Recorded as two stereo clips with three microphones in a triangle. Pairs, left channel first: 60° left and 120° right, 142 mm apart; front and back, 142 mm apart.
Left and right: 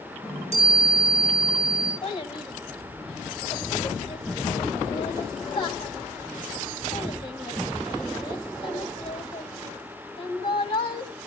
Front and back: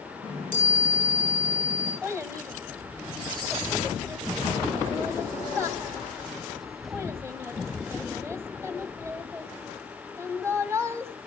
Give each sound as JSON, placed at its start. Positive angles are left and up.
{"t": 0.2, "sound": "a chime", "azimuth_deg": -160, "distance_m": 6.5}
{"t": 2.0, "sound": "a child speaking", "azimuth_deg": 110, "distance_m": 1.6}